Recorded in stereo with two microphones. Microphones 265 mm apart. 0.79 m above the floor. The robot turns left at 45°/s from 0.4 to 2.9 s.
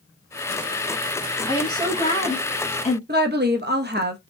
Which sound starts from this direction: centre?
A woman speaking, at 1.5 s.